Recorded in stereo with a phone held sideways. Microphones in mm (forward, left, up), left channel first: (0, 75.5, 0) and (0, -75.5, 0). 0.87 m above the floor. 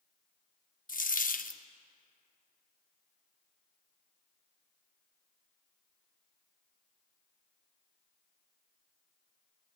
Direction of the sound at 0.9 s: 65° left (ahead or behind).